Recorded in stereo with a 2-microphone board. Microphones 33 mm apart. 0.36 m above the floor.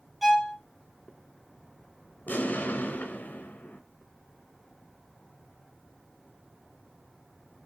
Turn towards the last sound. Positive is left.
turn(degrees=65)  # may be behind; listen again after turning